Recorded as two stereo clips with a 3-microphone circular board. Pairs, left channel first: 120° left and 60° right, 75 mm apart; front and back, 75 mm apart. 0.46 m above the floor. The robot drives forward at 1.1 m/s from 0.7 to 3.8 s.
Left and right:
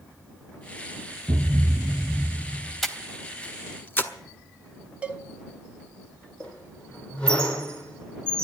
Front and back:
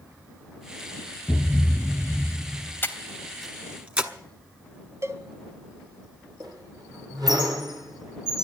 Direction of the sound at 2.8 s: 30° left.